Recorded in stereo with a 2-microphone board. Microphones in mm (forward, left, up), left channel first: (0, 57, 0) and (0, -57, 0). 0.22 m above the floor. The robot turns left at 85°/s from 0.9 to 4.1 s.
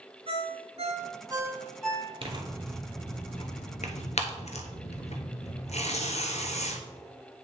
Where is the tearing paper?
50° right (ahead or behind), 0.9 m; by 6.8 s 70° left (ahead or behind), 0.9 m.